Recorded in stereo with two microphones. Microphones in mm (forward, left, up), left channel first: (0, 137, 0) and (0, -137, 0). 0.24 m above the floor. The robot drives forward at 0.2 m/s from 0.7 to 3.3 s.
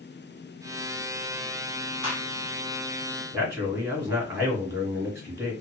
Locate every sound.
2.0 s a gunshot: 20° right (ahead or behind), 1.7 m
3.3 s a man speaking: 10° right (ahead or behind), 1.7 m